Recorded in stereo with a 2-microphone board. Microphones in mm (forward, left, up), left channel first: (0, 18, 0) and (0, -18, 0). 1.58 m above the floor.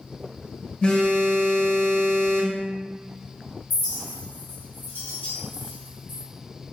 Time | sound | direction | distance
0.8 | a phone buzzing | 25° left (ahead or behind) | 0.6 m
3.7 | a clink | 60° left (ahead or behind) | 1.2 m